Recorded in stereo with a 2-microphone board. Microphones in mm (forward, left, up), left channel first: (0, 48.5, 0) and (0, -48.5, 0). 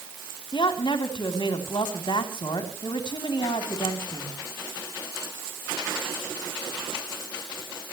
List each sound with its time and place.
0.5 s a woman speaking: 60° left (ahead or behind), 3 m